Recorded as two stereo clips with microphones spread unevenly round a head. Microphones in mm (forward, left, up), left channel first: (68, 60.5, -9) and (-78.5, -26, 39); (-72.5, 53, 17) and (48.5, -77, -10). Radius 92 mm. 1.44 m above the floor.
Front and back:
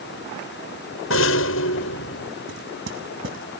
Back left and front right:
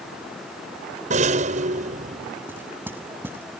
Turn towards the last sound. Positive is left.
turn(degrees=-125)